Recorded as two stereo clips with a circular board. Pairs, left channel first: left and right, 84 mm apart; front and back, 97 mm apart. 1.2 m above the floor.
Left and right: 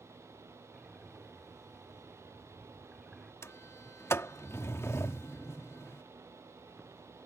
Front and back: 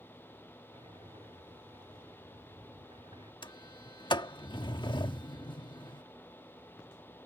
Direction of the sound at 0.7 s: 175° right.